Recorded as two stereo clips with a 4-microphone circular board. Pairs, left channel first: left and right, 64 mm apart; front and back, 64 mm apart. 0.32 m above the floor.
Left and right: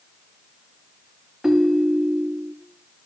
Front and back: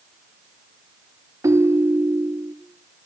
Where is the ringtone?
170° right, 0.6 m.